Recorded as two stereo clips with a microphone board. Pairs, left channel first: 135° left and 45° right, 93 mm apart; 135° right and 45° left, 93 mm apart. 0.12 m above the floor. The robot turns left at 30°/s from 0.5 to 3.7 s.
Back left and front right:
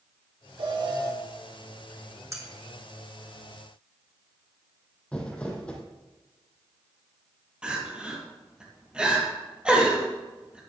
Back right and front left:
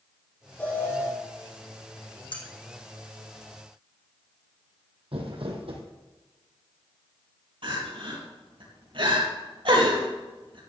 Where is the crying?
35° left, 4 m.